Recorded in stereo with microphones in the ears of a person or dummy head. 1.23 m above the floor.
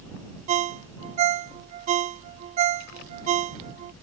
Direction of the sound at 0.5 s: 40° right (ahead or behind).